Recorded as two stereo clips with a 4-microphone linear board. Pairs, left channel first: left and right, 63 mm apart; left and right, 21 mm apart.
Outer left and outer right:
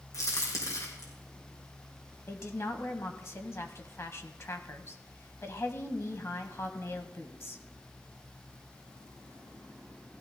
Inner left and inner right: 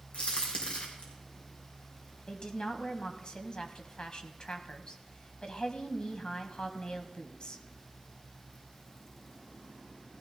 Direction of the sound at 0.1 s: 60° left (ahead or behind).